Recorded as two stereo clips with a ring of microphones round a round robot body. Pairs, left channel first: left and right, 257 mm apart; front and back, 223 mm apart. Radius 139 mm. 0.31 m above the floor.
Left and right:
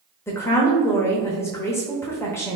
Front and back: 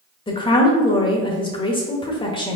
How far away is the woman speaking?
About 0.9 m.